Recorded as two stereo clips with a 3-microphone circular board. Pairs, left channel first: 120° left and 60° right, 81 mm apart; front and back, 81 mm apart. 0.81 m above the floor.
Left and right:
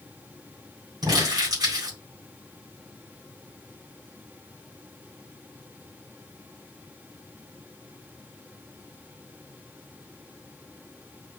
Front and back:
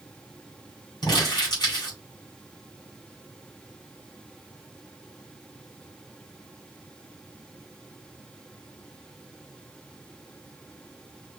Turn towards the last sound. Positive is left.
turn(degrees=-35)